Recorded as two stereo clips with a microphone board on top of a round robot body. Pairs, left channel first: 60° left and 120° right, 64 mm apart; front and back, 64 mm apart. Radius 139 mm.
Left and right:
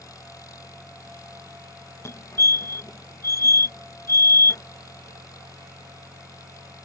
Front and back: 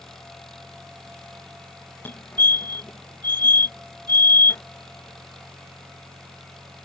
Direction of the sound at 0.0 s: 85° left.